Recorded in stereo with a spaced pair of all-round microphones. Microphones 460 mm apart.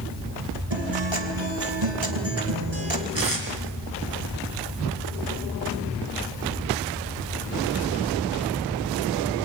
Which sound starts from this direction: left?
Tape being pulled, at 3.1 s.